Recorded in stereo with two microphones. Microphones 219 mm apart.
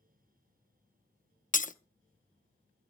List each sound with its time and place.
1.5 s breaking glass: 35° left (ahead or behind), 0.6 m